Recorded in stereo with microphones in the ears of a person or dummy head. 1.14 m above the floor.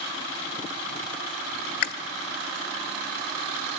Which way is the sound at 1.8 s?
60° left (ahead or behind).